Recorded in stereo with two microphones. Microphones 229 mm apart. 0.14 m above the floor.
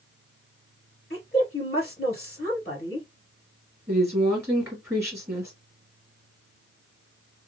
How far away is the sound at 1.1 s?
About 1.9 m.